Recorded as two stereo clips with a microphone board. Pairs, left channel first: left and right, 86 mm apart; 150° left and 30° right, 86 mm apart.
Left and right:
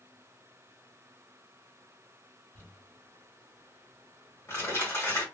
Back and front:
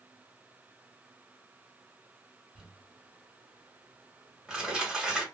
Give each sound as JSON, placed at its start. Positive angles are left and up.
{"t": 2.5, "sound": "crumpling", "azimuth_deg": 50, "distance_m": 1.4}